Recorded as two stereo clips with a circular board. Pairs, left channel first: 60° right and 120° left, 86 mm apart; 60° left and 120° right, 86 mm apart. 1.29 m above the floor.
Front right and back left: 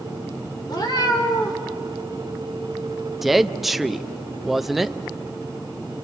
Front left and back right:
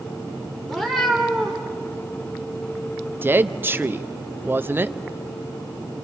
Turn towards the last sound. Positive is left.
turn(degrees=-155)